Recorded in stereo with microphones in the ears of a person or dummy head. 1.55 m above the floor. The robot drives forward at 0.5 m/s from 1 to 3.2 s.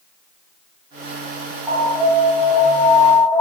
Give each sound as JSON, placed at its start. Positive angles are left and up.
{"t": 1.7, "sound": "an alarm", "side_deg": -15, "distance_m": 1.2}